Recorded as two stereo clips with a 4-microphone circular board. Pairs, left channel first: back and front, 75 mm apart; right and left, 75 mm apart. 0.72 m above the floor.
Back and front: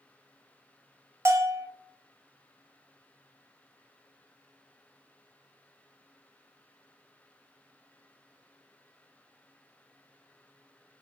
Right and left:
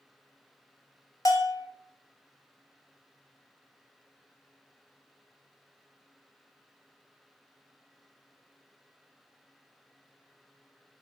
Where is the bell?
50° right, 0.6 m.